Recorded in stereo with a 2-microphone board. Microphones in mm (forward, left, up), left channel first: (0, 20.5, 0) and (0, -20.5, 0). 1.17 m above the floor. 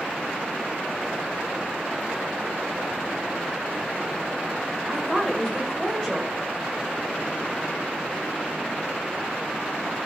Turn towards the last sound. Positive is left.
turn(degrees=5)  # may be behind; listen again after turning